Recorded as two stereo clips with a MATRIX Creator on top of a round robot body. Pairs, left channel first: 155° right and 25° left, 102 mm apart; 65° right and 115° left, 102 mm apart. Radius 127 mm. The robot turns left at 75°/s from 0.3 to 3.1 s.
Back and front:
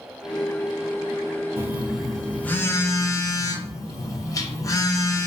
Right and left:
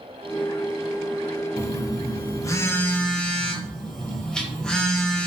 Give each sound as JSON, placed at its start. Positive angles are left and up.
{"t": 1.6, "sound": "a phone buzzing", "azimuth_deg": -30, "distance_m": 0.6}